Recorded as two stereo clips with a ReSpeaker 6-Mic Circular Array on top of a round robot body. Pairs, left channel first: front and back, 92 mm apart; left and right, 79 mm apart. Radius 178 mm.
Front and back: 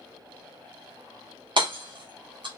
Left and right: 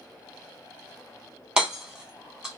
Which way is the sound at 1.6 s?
170° right.